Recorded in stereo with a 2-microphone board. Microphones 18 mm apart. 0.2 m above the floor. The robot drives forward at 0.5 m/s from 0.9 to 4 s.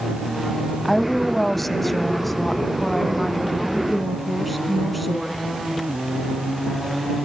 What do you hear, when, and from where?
0.8 s a woman speaking: 15° left (ahead or behind), 1.0 m; by 5.4 s 10° left (ahead or behind), 1.7 m